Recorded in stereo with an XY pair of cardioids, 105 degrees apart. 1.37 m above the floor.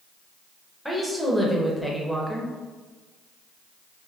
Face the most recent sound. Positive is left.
turn(degrees=0)